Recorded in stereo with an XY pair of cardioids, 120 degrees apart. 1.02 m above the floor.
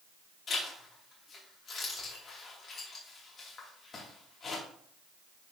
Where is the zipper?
40° left, 3 m.